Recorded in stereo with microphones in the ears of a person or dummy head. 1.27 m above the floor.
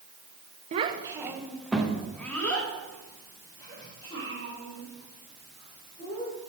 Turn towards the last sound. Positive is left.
turn(degrees=20)  # may be behind; listen again after turning